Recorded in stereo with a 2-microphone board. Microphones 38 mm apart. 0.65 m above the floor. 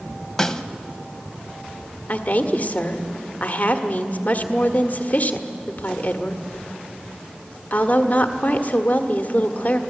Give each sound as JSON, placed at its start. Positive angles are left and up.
{"t": 0.4, "sound": "a snare drum", "side_deg": 15, "distance_m": 0.8}
{"t": 2.1, "sound": "a woman speaking", "side_deg": 45, "distance_m": 1.4}